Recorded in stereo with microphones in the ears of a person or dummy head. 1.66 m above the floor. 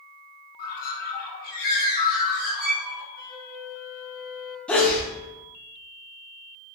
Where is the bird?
45° left (ahead or behind), 0.9 m.